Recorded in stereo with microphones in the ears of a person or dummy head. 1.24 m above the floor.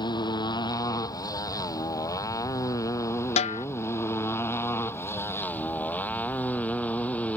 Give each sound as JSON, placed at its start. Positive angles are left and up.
{"t": 0.0, "sound": "a motorcycle", "side_deg": 20}
{"t": 3.4, "sound": "a snare drum", "side_deg": 35}